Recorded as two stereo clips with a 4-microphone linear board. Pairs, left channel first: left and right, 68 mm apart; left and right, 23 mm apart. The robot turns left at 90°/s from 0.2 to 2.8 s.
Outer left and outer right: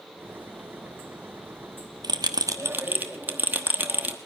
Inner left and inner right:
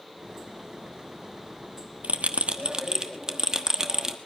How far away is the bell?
About 1.1 m.